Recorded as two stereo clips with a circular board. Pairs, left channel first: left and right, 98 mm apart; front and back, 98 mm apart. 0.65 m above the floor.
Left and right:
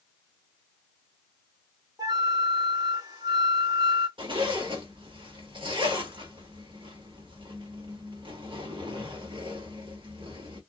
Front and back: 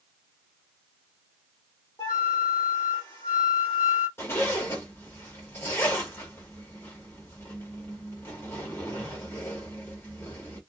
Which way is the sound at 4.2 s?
60° right.